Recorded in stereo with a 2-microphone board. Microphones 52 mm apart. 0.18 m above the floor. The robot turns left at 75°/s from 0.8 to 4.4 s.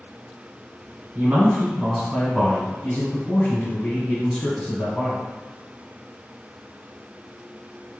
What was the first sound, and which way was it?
A man speaking, 115° right.